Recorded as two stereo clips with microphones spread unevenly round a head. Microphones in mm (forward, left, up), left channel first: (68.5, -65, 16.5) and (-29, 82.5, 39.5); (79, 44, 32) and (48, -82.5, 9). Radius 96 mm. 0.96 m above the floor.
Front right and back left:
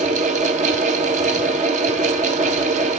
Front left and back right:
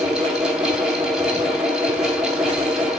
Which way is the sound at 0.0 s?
175° left.